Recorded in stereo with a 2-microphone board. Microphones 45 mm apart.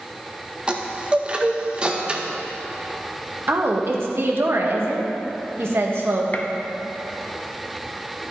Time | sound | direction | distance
0.7 | a chime | 20° right (ahead or behind) | 0.8 m
3.5 | a woman speaking | 60° right (ahead or behind) | 1.3 m
6.3 | a gunshot | 35° left (ahead or behind) | 0.8 m